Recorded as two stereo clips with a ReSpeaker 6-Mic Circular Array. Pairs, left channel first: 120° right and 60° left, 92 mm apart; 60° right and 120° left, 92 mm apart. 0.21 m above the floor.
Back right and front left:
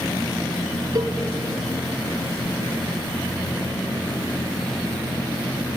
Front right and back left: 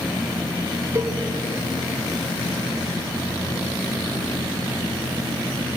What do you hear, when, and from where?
0.9 s a cowbell: 75° left, 1.1 m